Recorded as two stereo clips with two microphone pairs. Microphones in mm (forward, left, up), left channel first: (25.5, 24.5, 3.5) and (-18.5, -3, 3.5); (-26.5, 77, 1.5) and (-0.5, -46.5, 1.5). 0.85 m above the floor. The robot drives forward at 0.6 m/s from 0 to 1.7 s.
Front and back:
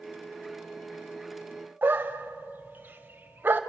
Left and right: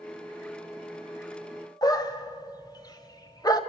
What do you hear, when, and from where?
1.8 s a dog barking: 160° left, 1.5 m